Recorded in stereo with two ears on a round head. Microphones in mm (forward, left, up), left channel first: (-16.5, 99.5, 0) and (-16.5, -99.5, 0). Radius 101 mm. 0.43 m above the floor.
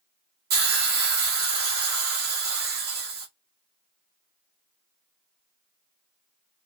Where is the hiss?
45° right (ahead or behind), 0.9 m.